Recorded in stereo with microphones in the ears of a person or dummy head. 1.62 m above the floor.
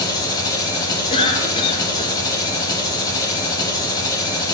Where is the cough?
30° left (ahead or behind), 1.4 m.